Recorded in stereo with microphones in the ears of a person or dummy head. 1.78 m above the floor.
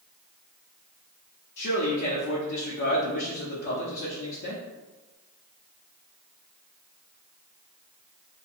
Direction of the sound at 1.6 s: 65° left (ahead or behind).